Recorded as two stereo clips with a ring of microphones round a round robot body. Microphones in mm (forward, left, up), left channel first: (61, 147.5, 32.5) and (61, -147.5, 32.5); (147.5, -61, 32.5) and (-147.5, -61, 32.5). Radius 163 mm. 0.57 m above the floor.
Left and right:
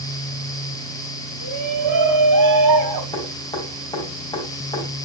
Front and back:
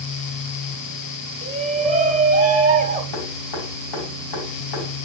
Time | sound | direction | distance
1.4 | a shout | 115° right | 3 m
3.1 | dripping | 15° left | 5 m